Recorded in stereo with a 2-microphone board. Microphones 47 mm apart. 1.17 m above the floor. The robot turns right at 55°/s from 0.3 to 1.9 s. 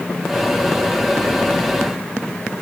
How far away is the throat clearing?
I don't hear throat clearing.